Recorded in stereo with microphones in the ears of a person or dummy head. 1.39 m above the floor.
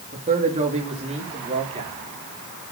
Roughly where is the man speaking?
Right.